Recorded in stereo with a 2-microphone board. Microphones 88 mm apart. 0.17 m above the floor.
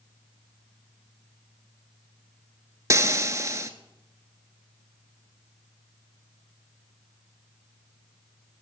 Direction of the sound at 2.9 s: 35° right (ahead or behind).